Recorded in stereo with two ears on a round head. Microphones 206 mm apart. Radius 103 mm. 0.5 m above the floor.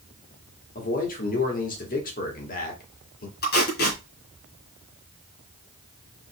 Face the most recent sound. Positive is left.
turn(degrees=45)  # may be behind; listen again after turning